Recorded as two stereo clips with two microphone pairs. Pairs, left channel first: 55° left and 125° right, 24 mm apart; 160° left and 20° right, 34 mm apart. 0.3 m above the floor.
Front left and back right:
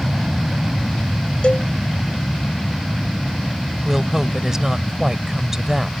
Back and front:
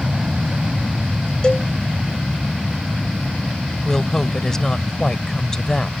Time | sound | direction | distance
0.0 | an aircraft | 60° right | ?
1.4 | a cowbell | 95° left | ?
3.9 | a woman speaking | 160° right | ?